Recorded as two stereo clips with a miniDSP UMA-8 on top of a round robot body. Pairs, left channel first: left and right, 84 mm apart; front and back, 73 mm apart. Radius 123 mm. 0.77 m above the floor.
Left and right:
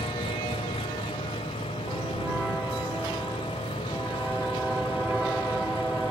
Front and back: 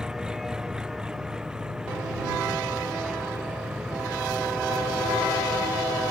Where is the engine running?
100° left.